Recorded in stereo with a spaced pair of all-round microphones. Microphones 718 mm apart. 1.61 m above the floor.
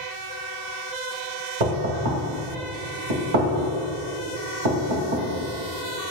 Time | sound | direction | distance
1.6 | knocking | 70° right (ahead or behind) | 1.6 m